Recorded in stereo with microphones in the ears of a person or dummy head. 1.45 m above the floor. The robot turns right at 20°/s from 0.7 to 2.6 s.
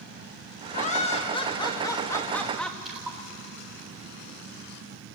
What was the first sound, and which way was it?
Laughter, 130° left.